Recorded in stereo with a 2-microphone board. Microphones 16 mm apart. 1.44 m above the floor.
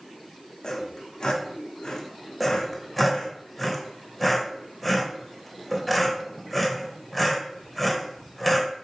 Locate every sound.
0.6 s sawing: 65° left (ahead or behind), 0.9 m
2.4 s sawing: 5° left (ahead or behind), 0.8 m